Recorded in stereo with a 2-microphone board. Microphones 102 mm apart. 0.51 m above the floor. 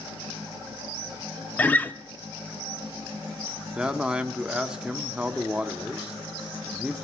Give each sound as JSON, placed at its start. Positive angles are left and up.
{"t": 1.6, "sound": "a guitar", "side_deg": 15, "distance_m": 0.6}
{"t": 3.8, "sound": "a man speaking", "side_deg": -10, "distance_m": 0.6}